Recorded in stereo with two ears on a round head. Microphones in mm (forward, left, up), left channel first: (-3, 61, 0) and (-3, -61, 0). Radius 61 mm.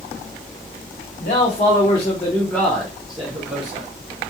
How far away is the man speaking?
About 1.1 m.